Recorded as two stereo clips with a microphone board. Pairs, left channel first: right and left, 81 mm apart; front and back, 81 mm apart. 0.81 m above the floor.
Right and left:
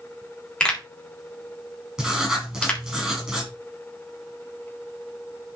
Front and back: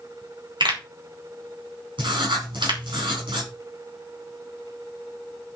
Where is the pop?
170° right, 3.5 m.